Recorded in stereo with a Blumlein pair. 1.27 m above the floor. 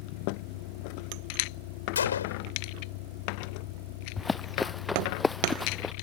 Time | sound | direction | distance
0.0 | a vehicle | 45° left | ?
1.9 | a gunshot | 65° left | ?
4.2 | running footsteps | 10° left | ?